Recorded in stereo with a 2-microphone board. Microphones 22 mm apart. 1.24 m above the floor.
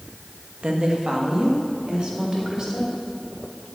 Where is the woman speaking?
45° right (ahead or behind), 1.3 m; by 2.9 s 30° right (ahead or behind), 3 m.